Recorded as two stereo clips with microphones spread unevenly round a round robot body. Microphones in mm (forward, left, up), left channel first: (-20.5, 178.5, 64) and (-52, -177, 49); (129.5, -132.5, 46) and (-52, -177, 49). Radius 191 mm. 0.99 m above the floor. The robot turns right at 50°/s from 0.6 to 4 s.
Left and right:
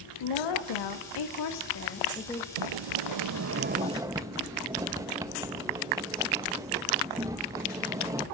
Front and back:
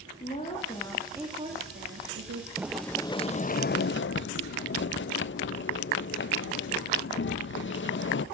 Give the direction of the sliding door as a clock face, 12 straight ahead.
3 o'clock.